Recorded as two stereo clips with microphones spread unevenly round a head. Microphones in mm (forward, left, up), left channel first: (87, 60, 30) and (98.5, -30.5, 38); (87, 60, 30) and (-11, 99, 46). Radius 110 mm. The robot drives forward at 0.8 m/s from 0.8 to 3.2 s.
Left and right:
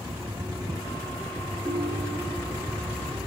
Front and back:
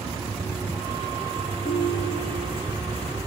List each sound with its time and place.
1.6 s a ringtone: 50° right, 4.5 m; by 2.6 s 55° right, 4 m